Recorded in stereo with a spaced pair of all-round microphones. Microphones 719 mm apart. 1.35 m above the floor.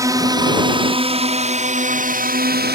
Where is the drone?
5° right (ahead or behind); by 2.8 s 15° right (ahead or behind).